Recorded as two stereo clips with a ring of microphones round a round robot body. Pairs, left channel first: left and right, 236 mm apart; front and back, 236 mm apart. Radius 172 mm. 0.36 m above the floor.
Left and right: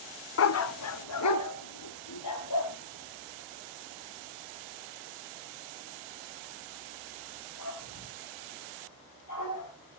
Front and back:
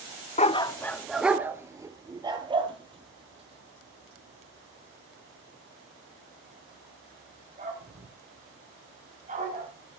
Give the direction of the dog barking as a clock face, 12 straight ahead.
10 o'clock.